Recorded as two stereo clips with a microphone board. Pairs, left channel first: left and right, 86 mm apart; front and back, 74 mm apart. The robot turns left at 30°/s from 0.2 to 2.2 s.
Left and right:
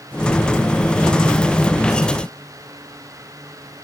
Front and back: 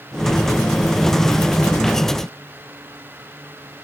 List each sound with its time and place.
Only background noise.